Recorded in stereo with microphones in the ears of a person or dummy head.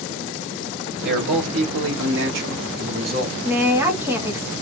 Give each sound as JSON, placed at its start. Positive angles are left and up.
{"t": 1.0, "sound": "a man speaking", "side_deg": -60, "distance_m": 1.2}
{"t": 3.4, "sound": "a woman speaking", "side_deg": -10, "distance_m": 0.8}